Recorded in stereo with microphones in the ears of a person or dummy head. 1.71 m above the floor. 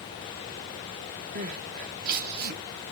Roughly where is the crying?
Right.